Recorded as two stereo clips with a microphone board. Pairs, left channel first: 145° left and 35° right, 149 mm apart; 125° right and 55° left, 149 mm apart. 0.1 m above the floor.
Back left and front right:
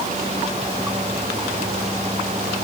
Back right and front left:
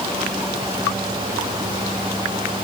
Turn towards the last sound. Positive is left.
No sound to turn to.